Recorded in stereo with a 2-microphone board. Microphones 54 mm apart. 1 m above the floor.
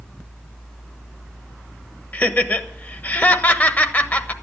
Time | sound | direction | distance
2.1 | laughter | 30° left (ahead or behind) | 1.1 m